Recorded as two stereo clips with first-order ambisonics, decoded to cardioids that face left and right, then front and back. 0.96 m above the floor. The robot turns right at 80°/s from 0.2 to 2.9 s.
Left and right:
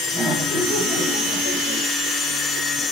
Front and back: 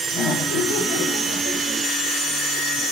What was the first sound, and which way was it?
Laughter, 20° right.